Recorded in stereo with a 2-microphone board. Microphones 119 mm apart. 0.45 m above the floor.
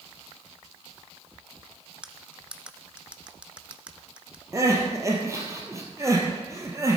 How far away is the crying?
About 2.5 m.